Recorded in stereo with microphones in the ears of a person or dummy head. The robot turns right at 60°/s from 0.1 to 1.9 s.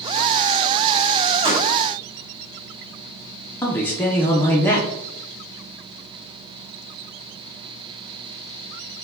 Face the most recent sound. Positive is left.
turn(degrees=5)  # may be behind; listen again after turning